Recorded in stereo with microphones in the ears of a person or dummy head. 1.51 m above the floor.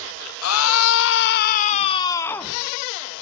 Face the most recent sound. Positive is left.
turn(degrees=5)  # may be behind; listen again after turning